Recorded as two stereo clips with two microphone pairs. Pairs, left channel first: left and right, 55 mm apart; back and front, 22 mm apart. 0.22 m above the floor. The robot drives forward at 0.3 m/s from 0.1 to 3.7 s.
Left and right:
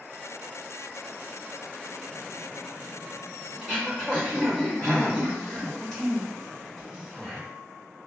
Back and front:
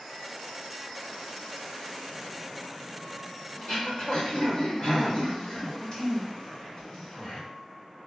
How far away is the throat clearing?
About 1.8 m.